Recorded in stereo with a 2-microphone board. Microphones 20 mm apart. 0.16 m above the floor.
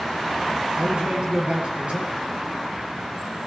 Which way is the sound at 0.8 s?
65° right (ahead or behind).